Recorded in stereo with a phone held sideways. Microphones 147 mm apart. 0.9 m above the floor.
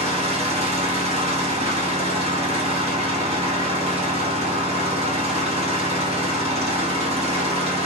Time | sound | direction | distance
0.0 | an engine running | 45° right (ahead or behind) | 1.0 m